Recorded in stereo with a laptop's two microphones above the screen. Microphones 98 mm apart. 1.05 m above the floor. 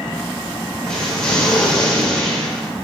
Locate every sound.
0.8 s an explosion: 10° left (ahead or behind), 2.5 m